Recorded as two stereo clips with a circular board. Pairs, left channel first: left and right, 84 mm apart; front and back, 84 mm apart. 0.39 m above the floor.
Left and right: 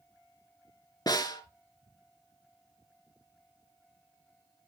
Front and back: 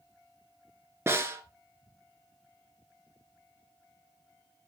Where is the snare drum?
125° left, 1.1 m.